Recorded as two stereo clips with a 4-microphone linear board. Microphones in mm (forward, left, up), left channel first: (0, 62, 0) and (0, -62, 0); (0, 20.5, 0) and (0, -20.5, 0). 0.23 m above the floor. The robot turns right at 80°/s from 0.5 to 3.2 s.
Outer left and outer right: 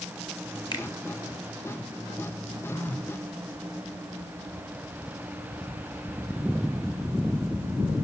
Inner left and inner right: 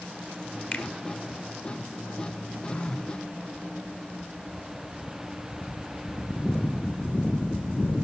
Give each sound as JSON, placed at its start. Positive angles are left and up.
{"t": 0.7, "sound": "a finger snap", "side_deg": 35, "distance_m": 2.5}
{"t": 2.7, "sound": "a phone buzzing", "azimuth_deg": 145, "distance_m": 1.9}